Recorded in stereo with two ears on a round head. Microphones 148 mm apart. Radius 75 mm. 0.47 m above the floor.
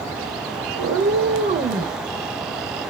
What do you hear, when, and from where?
0.8 s a cat meowing: 75° right (ahead or behind), 0.8 m; by 2.0 s 20° right (ahead or behind), 1.0 m